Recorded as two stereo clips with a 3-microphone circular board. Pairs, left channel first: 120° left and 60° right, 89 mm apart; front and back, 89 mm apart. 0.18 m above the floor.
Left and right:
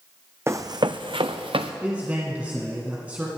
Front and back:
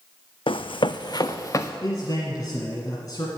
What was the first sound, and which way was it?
Running footsteps, straight ahead.